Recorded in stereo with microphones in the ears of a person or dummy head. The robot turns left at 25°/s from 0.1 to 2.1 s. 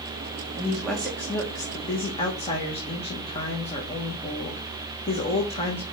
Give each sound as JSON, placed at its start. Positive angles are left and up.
{"t": 0.6, "sound": "a woman speaking", "azimuth_deg": -175, "distance_m": 1.3}